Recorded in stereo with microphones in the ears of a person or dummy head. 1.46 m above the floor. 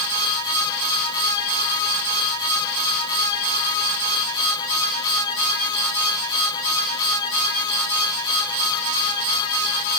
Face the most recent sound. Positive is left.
No sound to turn to.